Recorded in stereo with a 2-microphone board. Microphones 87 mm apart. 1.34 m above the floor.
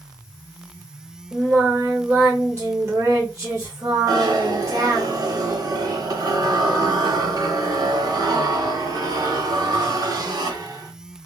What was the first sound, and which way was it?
Singing, 30° right (ahead or behind).